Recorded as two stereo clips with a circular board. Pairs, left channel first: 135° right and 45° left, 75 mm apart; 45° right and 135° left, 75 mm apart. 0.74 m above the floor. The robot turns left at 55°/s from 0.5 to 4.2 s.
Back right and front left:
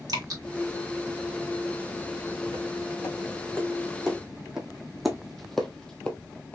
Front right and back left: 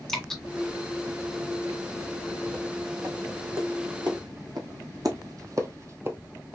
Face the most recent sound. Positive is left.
turn(degrees=-175)